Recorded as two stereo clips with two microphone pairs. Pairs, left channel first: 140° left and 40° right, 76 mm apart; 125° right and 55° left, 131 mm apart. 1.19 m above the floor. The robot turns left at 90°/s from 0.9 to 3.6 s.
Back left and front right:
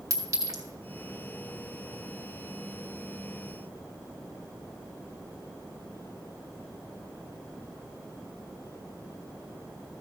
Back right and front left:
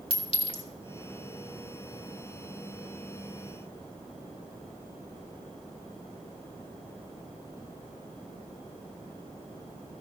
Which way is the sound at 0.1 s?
80° right.